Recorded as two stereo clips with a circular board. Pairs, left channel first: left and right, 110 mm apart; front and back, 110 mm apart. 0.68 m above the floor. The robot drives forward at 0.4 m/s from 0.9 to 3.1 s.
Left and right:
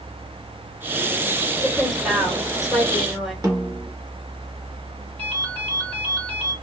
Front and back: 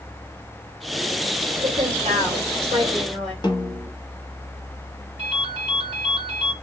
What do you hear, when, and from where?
1.6 s a woman speaking: 175° right, 1.2 m; by 3.3 s straight behind, 1.8 m
3.4 s a snare drum: 40° right, 0.8 m
5.2 s a ringtone: 170° left, 1.7 m